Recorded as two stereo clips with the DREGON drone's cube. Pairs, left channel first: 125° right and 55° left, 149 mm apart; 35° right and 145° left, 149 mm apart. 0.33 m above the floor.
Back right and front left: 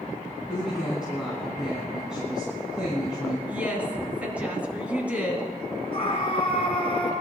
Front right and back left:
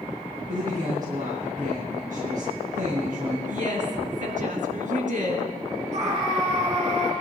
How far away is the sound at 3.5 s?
About 3 m.